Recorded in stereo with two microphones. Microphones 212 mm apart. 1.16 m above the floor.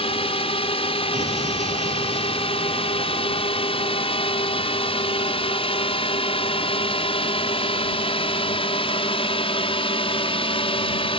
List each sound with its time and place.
0.0 s a drone: 25° left (ahead or behind)
1.1 s an explosion: 35° right (ahead or behind)